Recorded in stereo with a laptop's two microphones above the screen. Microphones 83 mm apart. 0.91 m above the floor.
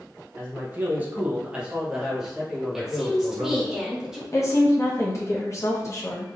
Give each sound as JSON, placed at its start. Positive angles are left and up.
{"t": 0.4, "sound": "a man speaking", "side_deg": -25, "distance_m": 0.7}
{"t": 2.7, "sound": "a woman speaking", "side_deg": -5, "distance_m": 1.1}
{"t": 4.3, "sound": "a woman speaking", "side_deg": 40, "distance_m": 1.0}